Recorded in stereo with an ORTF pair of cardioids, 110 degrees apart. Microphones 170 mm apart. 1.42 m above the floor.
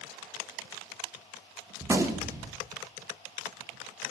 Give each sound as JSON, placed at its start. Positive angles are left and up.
{"t": 1.8, "sound": "a gunshot", "azimuth_deg": -15, "distance_m": 1.6}